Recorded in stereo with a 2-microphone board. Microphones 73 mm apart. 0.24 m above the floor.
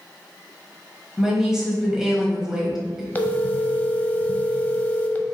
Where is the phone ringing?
25° left (ahead or behind), 0.5 m.